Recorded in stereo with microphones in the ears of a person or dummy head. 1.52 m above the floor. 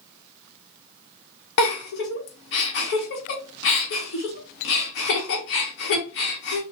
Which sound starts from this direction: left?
A giggle, at 1.6 s.